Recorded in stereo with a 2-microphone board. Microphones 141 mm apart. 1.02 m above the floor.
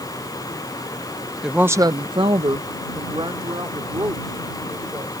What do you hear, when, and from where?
1.4 s a woman speaking: 5° right (ahead or behind); by 5.2 s 30° right (ahead or behind)